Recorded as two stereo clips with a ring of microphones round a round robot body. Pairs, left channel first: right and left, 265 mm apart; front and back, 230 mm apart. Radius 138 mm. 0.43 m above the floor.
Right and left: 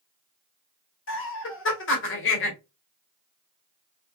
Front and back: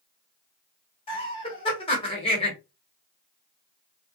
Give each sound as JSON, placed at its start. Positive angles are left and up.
{"t": 1.1, "sound": "laughter", "azimuth_deg": -65, "distance_m": 1.3}